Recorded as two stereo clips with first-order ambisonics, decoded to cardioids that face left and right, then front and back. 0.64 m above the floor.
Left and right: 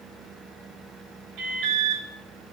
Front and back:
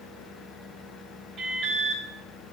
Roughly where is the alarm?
Behind right.